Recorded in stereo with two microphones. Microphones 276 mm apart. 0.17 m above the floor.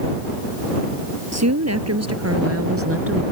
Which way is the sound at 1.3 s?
70° right (ahead or behind).